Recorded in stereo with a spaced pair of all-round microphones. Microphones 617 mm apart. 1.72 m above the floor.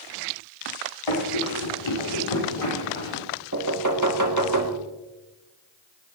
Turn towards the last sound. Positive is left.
turn(degrees=-30)  # may be behind; listen again after turning